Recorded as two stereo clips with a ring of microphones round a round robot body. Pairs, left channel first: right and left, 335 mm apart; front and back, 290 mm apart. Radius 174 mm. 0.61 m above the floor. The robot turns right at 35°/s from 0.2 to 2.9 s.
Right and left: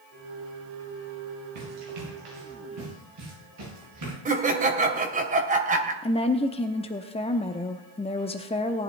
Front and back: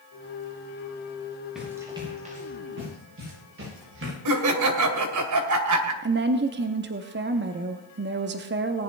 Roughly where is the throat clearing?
I don't hear throat clearing.